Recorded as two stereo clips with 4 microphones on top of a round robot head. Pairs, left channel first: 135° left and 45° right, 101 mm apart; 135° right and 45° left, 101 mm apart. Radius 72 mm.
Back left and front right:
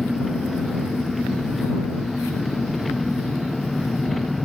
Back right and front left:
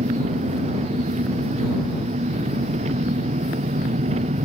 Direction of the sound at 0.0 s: 45° left.